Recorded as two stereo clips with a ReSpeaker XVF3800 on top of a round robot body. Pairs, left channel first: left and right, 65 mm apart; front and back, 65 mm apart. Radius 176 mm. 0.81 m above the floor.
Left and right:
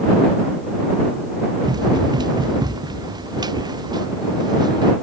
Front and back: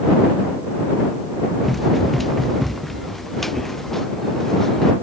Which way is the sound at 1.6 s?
90° right.